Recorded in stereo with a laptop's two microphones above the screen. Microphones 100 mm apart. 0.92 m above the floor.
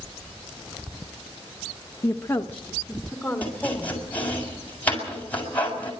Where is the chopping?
15° left (ahead or behind), 7 m.